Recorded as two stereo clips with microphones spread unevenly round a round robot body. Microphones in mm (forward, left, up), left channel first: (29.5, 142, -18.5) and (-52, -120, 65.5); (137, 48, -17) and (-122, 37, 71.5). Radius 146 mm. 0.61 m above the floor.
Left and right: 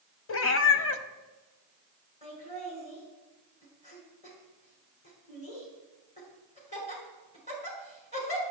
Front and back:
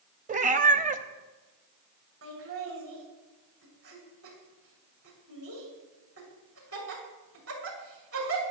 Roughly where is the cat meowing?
Behind left.